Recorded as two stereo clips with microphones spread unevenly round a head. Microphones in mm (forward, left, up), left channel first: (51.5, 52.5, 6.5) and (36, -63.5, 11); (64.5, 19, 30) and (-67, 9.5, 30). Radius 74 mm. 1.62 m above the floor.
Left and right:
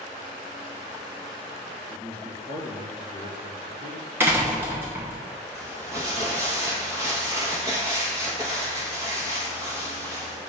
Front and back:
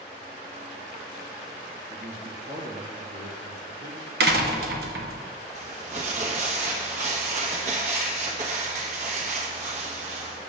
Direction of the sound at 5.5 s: 155° right.